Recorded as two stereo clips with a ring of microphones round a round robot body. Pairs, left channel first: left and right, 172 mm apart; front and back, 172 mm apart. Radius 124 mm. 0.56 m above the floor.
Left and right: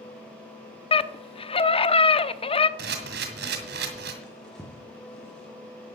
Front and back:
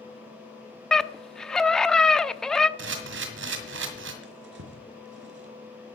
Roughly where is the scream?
Left.